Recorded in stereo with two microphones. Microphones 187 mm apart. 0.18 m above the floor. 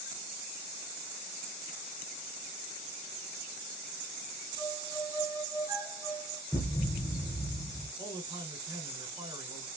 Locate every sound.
4.6 s a violin: 25° right (ahead or behind), 0.9 m
6.5 s a thud: 15° left (ahead or behind), 1.0 m
8.0 s a man speaking: 25° right (ahead or behind), 1.5 m